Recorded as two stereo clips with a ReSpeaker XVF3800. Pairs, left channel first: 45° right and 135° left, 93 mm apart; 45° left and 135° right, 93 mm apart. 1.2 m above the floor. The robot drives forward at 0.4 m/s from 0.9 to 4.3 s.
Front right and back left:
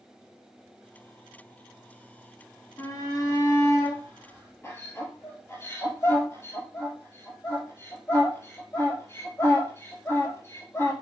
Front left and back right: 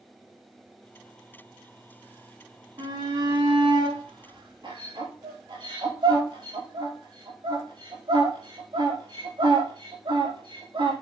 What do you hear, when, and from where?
2.8 s a shout: 100° right, 3 m; by 10.9 s 110° right, 3.5 m